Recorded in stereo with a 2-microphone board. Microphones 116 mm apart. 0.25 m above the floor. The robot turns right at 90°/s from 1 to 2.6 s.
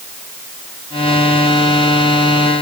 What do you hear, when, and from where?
Only background noise.